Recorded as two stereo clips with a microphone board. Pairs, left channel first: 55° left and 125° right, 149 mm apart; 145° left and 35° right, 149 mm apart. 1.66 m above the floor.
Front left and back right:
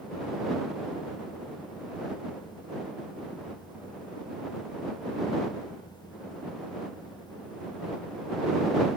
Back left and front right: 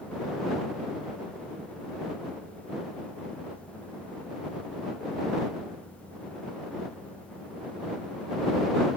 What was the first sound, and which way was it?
Only background noise.